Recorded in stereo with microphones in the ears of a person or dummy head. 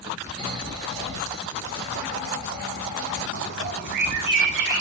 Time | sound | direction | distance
0.4 | snoring | 15° right (ahead or behind) | 4.5 m
3.3 | a bird | 60° right (ahead or behind) | 1.0 m